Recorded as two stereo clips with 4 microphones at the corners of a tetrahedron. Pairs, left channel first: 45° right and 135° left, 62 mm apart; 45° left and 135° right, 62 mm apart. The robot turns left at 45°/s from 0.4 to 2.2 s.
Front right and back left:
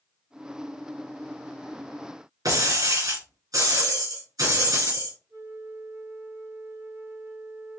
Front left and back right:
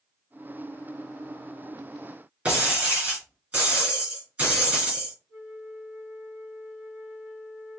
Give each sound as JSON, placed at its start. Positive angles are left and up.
{"t": 2.5, "sound": "breaking glass", "azimuth_deg": 150, "distance_m": 3.0}
{"t": 5.3, "sound": "a flute", "azimuth_deg": 140, "distance_m": 3.5}